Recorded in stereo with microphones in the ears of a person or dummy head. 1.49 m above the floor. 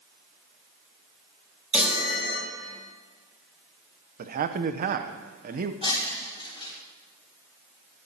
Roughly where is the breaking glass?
Left.